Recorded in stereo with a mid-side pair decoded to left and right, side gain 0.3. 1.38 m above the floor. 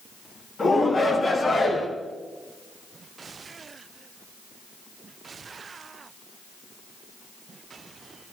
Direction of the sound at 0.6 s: 60° left.